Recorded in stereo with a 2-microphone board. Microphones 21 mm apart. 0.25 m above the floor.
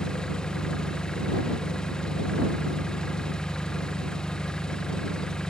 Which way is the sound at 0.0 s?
35° left (ahead or behind).